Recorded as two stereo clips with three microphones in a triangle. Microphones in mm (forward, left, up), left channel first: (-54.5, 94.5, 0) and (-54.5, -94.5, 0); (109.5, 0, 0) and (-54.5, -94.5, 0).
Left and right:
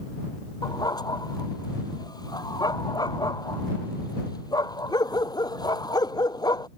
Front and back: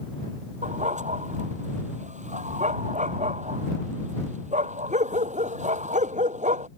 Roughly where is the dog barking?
Behind.